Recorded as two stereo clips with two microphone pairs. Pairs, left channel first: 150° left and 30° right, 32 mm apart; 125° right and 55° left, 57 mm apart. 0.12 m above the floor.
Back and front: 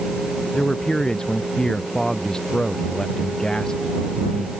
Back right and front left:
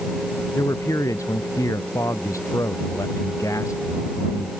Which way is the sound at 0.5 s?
140° right.